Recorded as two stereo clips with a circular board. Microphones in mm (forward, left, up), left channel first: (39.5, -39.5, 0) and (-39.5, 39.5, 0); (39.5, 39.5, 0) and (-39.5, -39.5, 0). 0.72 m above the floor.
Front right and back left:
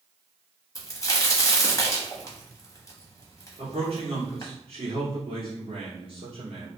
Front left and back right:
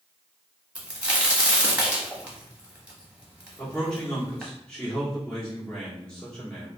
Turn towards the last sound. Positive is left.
turn(degrees=125)